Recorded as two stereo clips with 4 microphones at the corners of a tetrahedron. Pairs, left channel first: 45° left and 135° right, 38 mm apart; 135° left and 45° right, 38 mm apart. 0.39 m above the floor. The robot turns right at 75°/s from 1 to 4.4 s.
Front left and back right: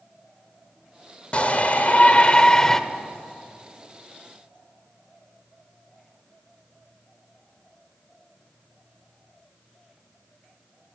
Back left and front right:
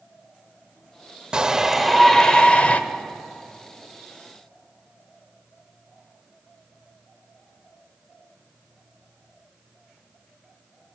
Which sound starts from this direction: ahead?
A shout, at 1.3 s.